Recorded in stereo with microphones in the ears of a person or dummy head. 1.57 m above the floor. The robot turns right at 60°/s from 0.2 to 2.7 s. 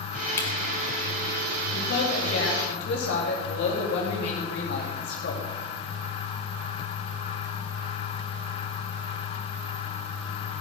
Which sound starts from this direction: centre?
A camera shutter, at 0.4 s.